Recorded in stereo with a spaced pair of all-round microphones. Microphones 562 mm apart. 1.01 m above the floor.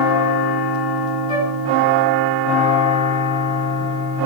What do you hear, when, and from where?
1.3 s a flute: 55° right (ahead or behind), 3 m